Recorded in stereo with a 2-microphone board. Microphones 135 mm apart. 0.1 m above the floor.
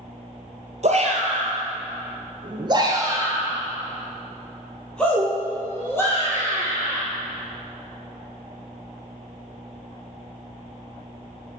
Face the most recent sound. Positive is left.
turn(degrees=20)  # may be behind; listen again after turning